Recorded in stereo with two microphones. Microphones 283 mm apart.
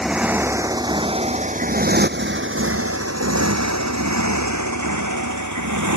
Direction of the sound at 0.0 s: Centre (ahead or behind).